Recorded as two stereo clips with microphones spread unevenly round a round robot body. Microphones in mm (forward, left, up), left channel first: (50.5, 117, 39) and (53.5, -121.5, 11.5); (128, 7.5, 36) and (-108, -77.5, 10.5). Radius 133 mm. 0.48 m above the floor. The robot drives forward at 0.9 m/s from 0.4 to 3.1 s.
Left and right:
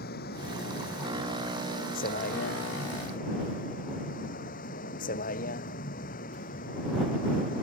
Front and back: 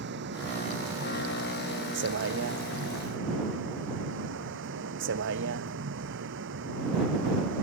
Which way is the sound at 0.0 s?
150° left.